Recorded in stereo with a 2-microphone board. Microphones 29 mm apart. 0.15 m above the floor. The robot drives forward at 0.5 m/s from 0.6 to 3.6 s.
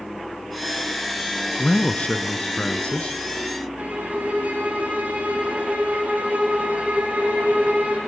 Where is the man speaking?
50° left (ahead or behind), 1.8 m; by 3.2 s 45° left (ahead or behind), 1.9 m.